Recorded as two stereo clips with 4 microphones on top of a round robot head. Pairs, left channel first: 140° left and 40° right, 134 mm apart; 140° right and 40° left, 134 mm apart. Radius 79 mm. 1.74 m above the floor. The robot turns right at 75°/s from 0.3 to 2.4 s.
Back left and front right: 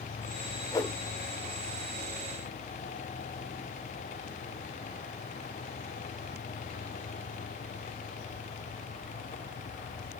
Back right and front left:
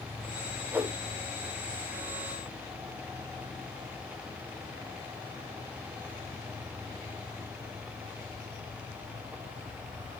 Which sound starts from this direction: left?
A whoosh, at 0.7 s.